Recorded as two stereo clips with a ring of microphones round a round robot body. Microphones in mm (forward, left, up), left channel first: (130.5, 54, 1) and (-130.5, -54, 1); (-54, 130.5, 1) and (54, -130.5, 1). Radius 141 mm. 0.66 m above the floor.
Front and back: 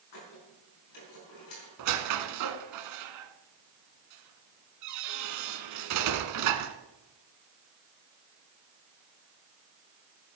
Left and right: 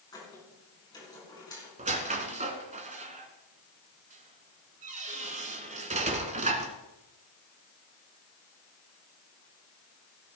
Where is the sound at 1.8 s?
135° right, 1.2 m.